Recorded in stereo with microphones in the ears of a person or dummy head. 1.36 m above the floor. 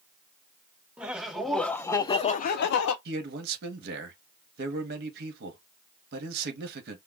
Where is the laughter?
10° right (ahead or behind), 1.0 m; by 3.0 s 70° left (ahead or behind), 0.6 m.